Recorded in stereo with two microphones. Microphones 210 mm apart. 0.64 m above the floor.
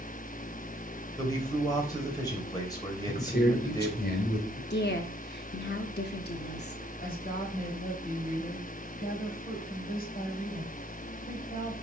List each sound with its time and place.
1.2 s a man speaking: 20° left (ahead or behind), 2.5 m
3.1 s a man speaking: 50° left (ahead or behind), 2 m
4.7 s a woman speaking: 55° left (ahead or behind), 0.9 m
7.0 s a woman speaking: 45° left (ahead or behind), 4 m